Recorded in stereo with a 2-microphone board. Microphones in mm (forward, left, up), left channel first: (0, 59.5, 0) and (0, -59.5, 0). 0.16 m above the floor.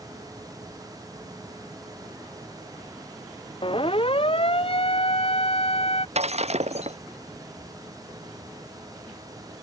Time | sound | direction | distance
3.6 | a siren | 50° left (ahead or behind) | ?
6.2 | breaking glass | 65° right (ahead or behind) | ?